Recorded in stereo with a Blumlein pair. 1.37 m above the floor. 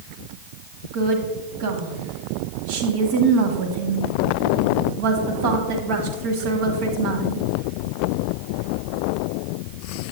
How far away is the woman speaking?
About 1.4 m.